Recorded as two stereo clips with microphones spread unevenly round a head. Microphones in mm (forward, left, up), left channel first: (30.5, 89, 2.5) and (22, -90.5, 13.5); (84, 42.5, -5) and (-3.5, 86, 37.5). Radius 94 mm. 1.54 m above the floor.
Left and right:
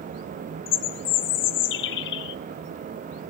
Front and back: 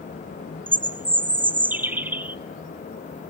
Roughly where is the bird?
Left.